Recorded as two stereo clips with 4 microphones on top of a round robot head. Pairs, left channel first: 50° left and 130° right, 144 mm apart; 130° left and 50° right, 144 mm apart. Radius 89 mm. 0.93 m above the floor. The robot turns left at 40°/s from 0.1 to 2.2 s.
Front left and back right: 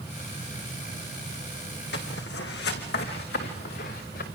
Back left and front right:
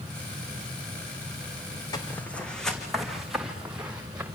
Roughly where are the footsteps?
Ahead left.